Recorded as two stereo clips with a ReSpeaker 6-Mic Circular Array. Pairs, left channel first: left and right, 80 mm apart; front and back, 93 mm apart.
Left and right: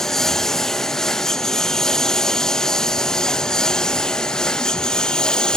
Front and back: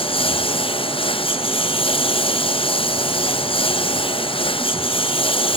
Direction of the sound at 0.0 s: 5° left.